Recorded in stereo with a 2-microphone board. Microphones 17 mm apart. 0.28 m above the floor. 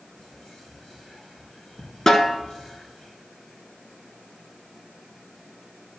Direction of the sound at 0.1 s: 70° left (ahead or behind).